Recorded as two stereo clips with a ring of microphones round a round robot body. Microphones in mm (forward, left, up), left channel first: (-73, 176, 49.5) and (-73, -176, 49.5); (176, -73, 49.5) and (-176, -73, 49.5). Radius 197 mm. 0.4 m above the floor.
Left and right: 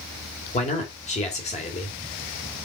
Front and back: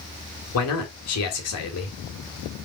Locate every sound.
0.5 s a man speaking: 25° left, 1.9 m